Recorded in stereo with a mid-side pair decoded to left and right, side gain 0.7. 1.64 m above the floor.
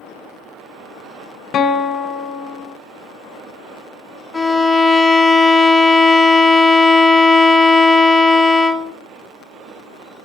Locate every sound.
1.5 s a guitar: 40° left, 0.6 m
4.3 s a violin: 10° left, 0.6 m